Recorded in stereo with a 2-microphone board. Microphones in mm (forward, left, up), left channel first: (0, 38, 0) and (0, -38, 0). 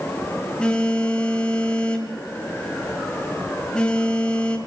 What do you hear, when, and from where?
0.6 s a phone buzzing: 10° left (ahead or behind), 2.0 m